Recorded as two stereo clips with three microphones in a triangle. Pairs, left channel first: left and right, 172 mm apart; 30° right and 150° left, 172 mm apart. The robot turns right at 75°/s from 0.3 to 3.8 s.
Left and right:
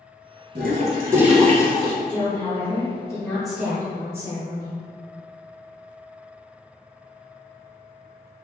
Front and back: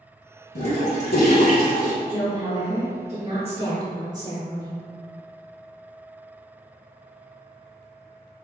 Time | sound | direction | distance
0.6 | a toilet flushing | 60° right | 0.8 m
2.1 | a woman speaking | 75° left | 1.2 m